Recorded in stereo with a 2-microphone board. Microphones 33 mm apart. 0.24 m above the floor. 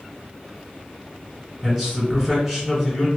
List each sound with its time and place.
1.6 s a man speaking: 5° left (ahead or behind), 1.5 m